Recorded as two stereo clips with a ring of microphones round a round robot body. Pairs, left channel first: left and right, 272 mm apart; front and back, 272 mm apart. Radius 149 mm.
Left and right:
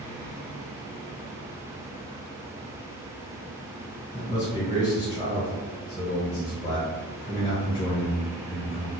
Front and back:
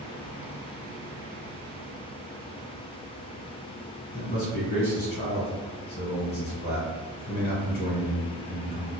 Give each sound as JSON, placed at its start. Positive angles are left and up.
{"t": 4.1, "sound": "a man speaking", "azimuth_deg": 25, "distance_m": 1.1}